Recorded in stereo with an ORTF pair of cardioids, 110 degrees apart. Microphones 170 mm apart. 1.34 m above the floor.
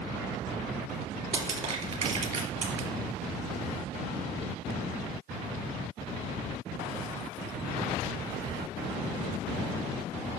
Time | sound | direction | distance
1.3 | crushing | 40° right | 3 m